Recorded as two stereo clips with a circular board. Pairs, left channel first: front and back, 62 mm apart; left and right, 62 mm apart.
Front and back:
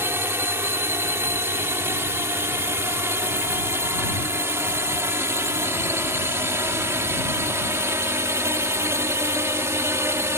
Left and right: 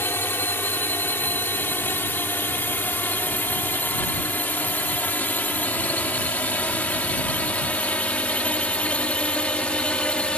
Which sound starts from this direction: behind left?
A drone, at 0.0 s.